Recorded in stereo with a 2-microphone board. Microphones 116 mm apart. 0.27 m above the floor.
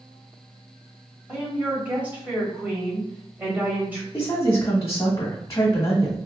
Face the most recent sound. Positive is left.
turn(degrees=30)  # may be behind; listen again after turning